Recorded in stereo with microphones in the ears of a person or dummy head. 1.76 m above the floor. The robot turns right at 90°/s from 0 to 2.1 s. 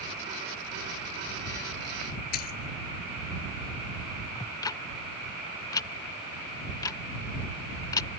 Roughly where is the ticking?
Left.